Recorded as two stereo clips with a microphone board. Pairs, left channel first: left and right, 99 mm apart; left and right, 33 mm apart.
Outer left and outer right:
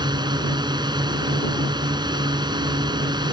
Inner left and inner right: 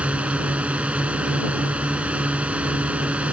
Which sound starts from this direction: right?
A drone, at 0.0 s.